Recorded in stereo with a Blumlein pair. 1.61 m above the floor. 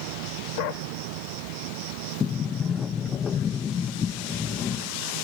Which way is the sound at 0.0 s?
45° right.